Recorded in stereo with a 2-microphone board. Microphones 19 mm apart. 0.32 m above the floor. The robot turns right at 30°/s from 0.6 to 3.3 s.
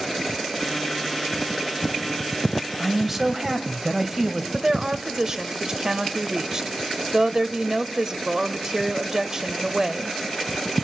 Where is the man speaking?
5° right (ahead or behind), 1.4 m; by 4.4 s 20° right (ahead or behind), 1.4 m.